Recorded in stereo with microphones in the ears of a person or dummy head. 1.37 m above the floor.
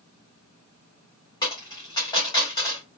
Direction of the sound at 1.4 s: 30° left (ahead or behind).